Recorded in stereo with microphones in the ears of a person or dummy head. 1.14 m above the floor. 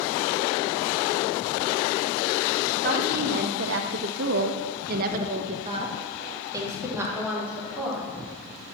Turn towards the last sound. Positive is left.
turn(degrees=5)  # may be behind; listen again after turning